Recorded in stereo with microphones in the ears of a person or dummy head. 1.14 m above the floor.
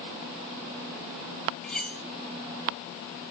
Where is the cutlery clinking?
5° left (ahead or behind), 2.5 m.